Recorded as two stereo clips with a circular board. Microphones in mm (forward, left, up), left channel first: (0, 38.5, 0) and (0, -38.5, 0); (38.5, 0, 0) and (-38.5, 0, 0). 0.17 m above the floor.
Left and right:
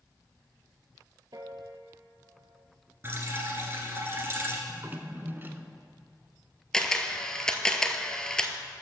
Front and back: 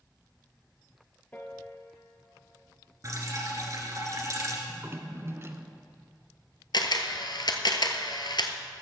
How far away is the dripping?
About 1.8 m.